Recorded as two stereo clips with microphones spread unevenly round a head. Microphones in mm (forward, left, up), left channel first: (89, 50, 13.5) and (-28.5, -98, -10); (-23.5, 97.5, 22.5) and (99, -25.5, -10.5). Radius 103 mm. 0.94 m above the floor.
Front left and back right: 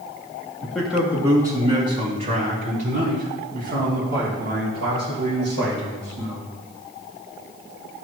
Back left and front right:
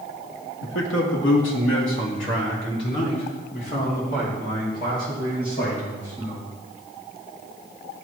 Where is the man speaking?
140° left, 1.7 m; by 6.4 s 170° right, 6.5 m.